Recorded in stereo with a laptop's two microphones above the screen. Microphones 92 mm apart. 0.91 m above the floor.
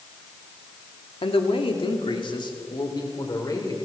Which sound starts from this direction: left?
A man speaking, at 1.2 s.